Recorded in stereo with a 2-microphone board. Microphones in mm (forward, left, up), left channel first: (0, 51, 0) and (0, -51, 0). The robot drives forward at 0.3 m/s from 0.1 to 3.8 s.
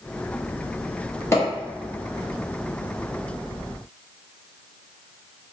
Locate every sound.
1.3 s a pop: 25° left (ahead or behind), 1.3 m